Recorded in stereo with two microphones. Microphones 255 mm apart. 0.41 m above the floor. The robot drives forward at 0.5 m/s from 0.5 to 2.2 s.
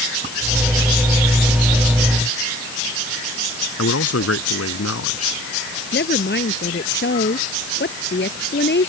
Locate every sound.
3.8 s a man speaking: 70° left (ahead or behind)
5.9 s a woman speaking: 45° left (ahead or behind)